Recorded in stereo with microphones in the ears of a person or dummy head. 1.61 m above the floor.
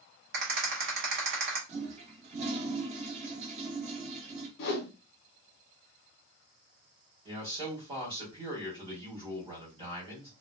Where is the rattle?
55° right (ahead or behind), 1.0 m.